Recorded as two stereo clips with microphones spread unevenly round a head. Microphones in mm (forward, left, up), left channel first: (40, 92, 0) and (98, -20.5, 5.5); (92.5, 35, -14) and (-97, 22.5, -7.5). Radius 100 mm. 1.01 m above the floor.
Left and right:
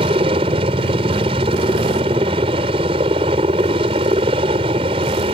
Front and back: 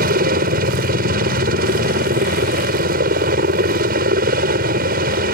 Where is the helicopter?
125° right.